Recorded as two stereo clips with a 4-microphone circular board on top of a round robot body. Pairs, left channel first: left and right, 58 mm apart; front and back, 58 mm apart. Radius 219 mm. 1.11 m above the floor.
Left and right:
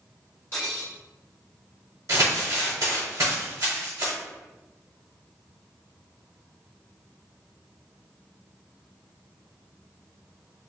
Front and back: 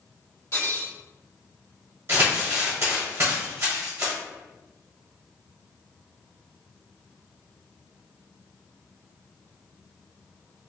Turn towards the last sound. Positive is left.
turn(degrees=-135)